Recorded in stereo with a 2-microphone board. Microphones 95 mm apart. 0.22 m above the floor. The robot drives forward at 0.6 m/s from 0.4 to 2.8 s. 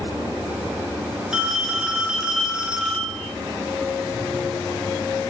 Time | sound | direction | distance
1.3 | a phone ringing | 5° right (ahead or behind) | 2.5 m